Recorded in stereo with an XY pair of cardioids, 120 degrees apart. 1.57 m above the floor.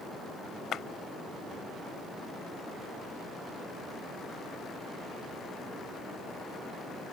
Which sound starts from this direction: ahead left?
A clap, at 0.7 s.